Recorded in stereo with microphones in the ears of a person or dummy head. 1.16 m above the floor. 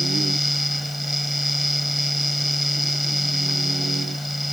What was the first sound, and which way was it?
A fan, centre (ahead or behind).